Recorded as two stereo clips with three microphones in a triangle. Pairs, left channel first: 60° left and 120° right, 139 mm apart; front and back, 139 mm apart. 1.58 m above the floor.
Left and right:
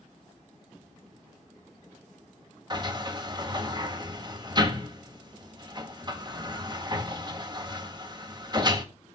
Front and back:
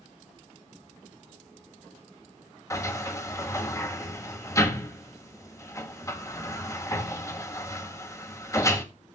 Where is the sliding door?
65° right, 1.5 m.